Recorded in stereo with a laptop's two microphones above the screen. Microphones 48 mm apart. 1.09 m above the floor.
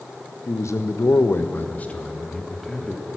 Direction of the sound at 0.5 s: 80° left.